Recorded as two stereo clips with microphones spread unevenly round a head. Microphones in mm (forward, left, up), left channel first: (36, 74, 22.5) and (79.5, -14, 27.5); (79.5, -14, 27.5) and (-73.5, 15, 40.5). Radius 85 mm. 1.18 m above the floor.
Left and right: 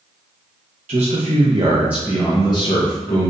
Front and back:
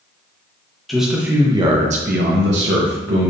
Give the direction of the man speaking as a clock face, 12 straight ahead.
3 o'clock.